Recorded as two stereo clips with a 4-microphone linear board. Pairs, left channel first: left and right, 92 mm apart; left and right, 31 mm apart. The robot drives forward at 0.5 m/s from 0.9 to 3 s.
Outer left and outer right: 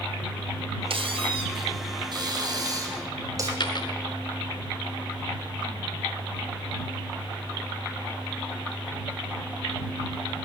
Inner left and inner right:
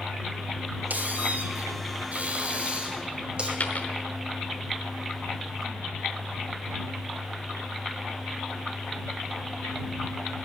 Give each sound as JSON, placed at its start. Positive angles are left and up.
{"t": 0.9, "sound": "a squeak", "side_deg": -65, "distance_m": 1.0}
{"t": 3.6, "sound": "a dropped coin", "side_deg": 50, "distance_m": 0.9}